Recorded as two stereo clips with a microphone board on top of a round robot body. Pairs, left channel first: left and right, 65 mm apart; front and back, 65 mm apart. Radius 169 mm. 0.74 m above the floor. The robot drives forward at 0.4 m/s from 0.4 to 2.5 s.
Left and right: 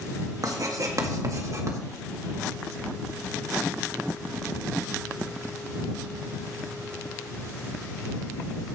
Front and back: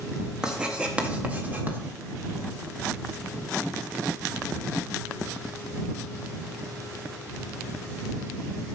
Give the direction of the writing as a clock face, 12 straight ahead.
3 o'clock.